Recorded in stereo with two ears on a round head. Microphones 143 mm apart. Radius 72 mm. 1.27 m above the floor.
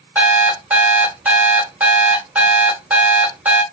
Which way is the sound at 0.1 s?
10° right (ahead or behind).